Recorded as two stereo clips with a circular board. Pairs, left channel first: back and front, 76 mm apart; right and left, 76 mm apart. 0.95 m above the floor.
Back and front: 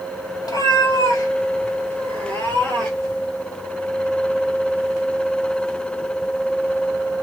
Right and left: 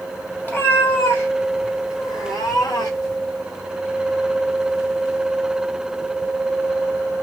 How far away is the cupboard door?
No cupboard door in this recording.